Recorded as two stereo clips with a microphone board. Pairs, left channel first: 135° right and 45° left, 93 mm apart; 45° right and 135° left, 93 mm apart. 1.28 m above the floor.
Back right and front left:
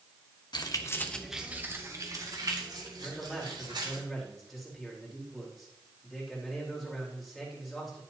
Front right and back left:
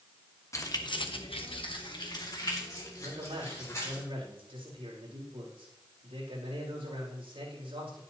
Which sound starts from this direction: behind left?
A man speaking, at 3.0 s.